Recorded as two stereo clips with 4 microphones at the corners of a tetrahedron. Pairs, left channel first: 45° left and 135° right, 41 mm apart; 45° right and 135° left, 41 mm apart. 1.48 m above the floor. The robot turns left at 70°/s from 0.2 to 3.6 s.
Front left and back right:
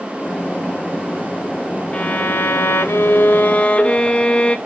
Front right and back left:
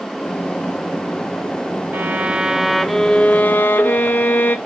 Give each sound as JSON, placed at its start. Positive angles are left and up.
{"t": 1.9, "sound": "a violin", "azimuth_deg": 105, "distance_m": 1.1}